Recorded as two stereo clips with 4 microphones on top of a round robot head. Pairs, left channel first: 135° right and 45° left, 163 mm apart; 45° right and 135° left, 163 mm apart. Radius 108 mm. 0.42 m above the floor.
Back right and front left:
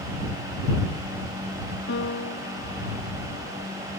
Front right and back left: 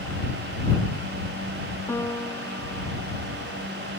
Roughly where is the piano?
Behind right.